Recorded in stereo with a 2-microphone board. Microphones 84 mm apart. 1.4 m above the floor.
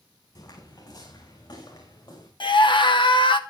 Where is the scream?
70° left (ahead or behind), 1.5 m.